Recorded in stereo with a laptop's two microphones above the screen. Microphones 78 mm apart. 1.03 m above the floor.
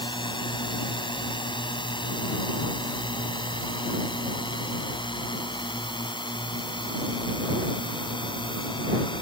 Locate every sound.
0.0 s a drone: 80° left